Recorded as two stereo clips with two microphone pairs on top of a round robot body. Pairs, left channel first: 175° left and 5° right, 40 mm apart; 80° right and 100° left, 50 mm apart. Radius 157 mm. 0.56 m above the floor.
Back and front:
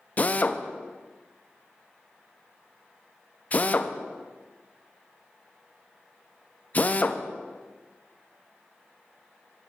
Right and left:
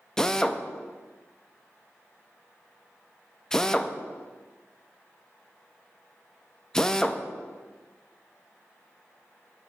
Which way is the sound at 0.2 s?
155° right.